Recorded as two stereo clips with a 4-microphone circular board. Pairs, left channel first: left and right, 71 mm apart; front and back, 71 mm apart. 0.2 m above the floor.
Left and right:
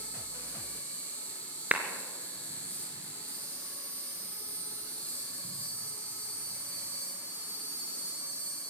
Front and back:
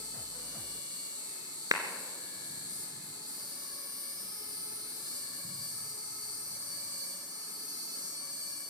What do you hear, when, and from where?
0.0 s an insect: 155° left, 8 m
1.7 s a clap: 160° right, 2.5 m